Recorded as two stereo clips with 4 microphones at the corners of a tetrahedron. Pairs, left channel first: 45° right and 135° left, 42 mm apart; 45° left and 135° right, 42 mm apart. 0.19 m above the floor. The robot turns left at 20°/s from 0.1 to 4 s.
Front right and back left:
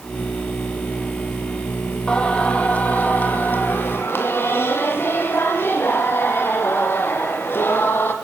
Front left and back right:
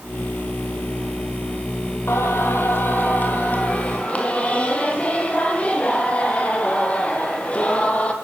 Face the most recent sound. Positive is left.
turn(degrees=-10)